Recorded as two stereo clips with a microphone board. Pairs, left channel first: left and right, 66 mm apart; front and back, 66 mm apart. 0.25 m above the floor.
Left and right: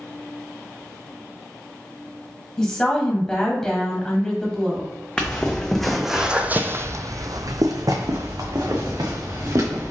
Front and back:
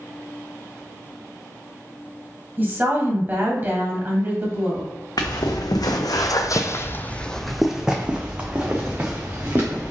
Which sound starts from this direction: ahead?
Footsteps, at 5.2 s.